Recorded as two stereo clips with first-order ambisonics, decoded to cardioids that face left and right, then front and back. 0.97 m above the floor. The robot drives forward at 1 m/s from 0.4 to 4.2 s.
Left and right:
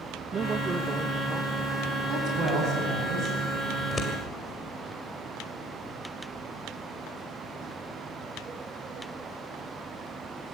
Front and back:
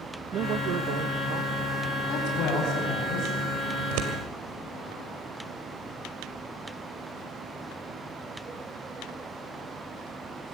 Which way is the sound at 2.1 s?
35° right.